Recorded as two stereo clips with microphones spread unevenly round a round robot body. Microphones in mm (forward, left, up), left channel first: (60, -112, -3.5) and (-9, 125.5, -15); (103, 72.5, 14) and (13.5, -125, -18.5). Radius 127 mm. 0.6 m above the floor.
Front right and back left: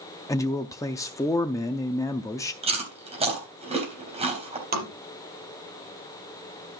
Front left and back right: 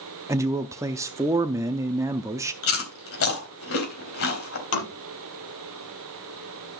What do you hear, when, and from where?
0.3 s a man speaking: 145° right, 0.5 m
2.6 s chewing: 40° left, 3.5 m
4.7 s tapping: 50° left, 4.5 m